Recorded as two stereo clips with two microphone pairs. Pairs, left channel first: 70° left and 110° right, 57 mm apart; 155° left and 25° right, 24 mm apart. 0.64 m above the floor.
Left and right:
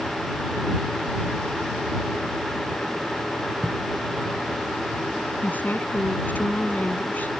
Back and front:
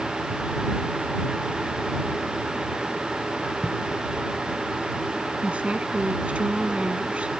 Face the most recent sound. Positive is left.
turn(degrees=10)